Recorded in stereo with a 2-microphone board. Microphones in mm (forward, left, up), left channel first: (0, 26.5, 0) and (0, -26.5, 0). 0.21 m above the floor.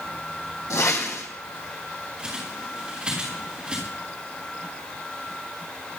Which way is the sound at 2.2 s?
20° right (ahead or behind).